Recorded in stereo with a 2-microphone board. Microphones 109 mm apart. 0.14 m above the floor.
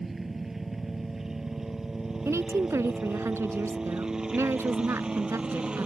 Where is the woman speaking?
25° right (ahead or behind).